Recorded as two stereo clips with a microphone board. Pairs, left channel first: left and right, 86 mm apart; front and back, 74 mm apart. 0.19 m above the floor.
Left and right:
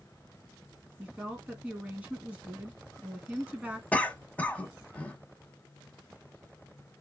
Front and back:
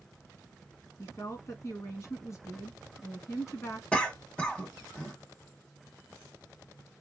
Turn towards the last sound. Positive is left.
turn(degrees=50)